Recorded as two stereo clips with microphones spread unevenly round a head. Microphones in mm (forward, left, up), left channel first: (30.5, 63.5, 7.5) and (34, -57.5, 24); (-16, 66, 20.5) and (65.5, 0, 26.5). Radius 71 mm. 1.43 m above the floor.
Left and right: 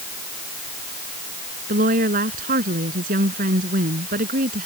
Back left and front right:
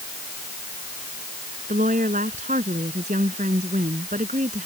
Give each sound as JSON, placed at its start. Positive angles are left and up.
{"t": 1.7, "sound": "a woman speaking", "azimuth_deg": -80}